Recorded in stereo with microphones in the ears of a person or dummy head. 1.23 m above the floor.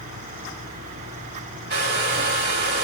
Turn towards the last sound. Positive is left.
turn(degrees=-55)  # may be behind; listen again after turning